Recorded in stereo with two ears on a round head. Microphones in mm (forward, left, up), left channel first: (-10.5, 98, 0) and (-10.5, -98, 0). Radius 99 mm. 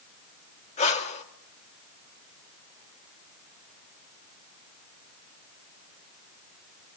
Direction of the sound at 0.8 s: 30° left (ahead or behind).